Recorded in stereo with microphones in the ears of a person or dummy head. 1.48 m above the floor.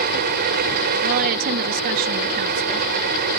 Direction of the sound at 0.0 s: 50° right (ahead or behind).